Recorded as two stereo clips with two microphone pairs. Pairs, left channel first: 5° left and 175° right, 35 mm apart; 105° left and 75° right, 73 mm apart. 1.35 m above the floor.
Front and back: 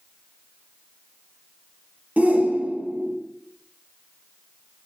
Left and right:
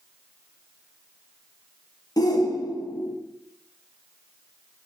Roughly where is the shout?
Behind left.